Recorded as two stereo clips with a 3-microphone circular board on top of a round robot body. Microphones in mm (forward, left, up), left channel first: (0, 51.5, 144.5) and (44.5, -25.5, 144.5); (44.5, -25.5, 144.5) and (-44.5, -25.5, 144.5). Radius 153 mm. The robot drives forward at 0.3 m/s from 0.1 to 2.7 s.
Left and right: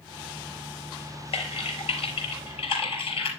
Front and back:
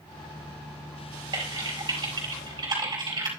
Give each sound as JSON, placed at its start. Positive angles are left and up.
{"t": 1.3, "sound": "typing on a keyboard", "azimuth_deg": 135, "distance_m": 4.0}